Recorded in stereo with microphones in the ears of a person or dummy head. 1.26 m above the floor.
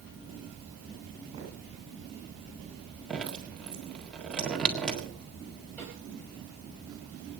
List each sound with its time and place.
1.3 s footsteps: 20° right (ahead or behind), 9.5 m
3.1 s dripping: centre (ahead or behind), 1.6 m
5.8 s a snare drum: 10° left (ahead or behind), 6 m